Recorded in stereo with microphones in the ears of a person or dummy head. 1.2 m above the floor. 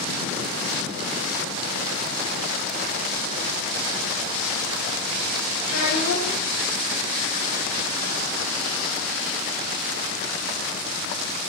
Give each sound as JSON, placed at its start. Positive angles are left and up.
{"t": 5.7, "sound": "a child speaking", "side_deg": 70, "distance_m": 0.6}